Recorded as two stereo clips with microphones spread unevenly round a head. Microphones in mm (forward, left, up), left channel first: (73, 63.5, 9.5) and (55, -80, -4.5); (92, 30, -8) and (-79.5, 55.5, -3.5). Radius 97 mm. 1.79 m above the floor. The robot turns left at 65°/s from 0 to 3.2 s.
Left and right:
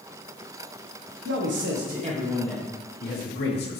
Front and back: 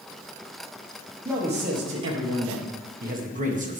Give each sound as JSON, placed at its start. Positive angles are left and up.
{"t": 1.2, "sound": "a man speaking", "azimuth_deg": -110, "distance_m": 1.4}